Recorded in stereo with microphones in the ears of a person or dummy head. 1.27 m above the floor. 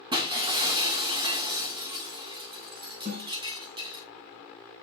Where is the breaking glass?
25° right (ahead or behind), 1.6 m.